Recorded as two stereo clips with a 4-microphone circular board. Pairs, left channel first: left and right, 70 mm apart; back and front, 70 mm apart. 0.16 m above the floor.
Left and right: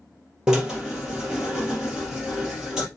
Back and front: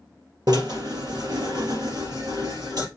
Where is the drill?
10° right, 3.5 m.